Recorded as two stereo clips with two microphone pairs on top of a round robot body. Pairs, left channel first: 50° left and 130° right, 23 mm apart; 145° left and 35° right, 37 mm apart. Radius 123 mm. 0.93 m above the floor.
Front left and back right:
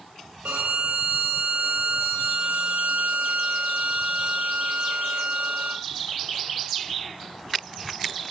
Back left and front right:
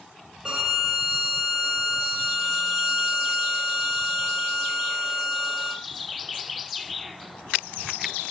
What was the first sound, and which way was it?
A violin, 115° right.